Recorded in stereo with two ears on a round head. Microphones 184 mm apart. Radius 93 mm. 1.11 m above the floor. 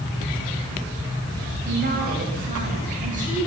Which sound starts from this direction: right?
A woman speaking, at 1.6 s.